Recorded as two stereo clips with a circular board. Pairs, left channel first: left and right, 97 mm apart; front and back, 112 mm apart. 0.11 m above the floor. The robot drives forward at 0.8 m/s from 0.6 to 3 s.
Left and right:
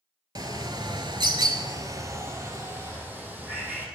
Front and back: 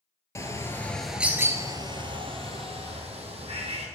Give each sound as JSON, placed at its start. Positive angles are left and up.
{"t": 0.3, "sound": "a bird", "azimuth_deg": -60, "distance_m": 0.8}